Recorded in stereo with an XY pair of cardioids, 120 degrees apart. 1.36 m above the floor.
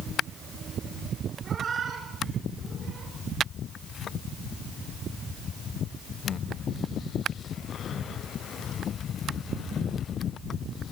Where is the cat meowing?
40° right, 4 m; by 3.1 s 55° right, 4.5 m.